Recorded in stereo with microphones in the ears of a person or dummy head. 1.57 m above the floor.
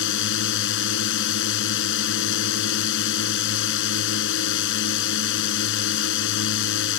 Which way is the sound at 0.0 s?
70° left (ahead or behind).